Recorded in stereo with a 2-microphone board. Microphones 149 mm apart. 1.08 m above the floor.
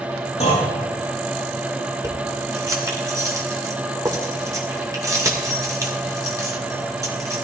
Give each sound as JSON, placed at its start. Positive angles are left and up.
{"t": 0.4, "sound": "a clunk", "side_deg": 50, "distance_m": 7.0}
{"t": 2.0, "sound": "keys jangling", "side_deg": -20, "distance_m": 2.0}